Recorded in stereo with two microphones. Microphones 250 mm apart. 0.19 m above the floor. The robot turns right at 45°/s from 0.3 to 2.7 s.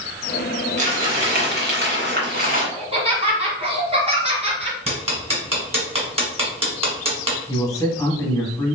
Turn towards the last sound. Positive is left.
turn(degrees=15)  # may be behind; listen again after turning